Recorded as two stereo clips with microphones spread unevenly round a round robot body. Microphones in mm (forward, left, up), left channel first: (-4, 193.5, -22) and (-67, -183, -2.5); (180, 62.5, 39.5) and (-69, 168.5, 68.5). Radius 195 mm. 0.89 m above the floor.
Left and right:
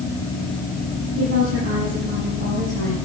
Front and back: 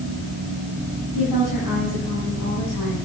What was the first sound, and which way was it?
A woman speaking, 40° right.